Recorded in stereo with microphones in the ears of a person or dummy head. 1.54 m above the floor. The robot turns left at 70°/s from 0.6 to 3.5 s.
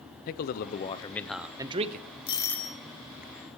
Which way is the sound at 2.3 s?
30° left.